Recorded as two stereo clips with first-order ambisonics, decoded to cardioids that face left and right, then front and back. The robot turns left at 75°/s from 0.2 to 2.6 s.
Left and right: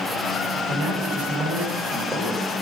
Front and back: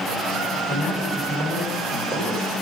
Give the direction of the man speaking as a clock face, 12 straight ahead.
2 o'clock.